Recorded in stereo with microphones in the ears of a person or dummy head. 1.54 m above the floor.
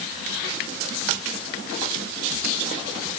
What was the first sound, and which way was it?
Only background noise.